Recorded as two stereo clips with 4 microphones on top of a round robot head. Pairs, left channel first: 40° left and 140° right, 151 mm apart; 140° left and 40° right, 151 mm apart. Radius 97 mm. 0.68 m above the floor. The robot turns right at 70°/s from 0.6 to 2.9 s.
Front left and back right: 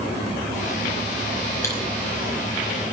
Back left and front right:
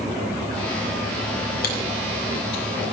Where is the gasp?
I don't hear a gasp.